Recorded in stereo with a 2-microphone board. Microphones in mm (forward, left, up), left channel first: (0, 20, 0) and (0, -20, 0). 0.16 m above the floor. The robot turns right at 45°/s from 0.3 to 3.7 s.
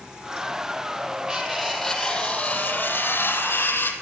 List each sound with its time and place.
1.3 s cutlery clinking: 20° right, 4 m; by 3.9 s 90° left, 4 m